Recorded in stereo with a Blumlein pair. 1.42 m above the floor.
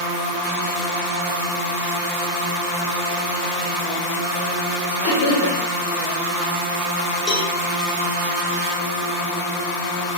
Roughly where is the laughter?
Ahead left.